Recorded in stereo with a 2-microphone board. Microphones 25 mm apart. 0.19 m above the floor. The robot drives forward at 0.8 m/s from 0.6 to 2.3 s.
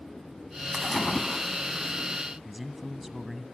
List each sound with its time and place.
0.7 s a splash: centre (ahead or behind), 0.7 m
2.5 s a man speaking: 10° right (ahead or behind), 1.0 m